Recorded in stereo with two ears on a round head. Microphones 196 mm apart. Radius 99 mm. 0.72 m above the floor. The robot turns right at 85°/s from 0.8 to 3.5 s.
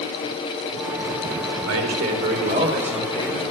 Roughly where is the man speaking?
Right.